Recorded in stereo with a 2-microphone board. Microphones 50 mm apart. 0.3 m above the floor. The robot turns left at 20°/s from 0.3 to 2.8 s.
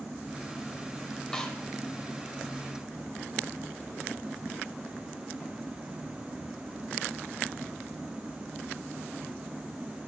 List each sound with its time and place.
1.3 s a snare drum: 15° left (ahead or behind), 0.8 m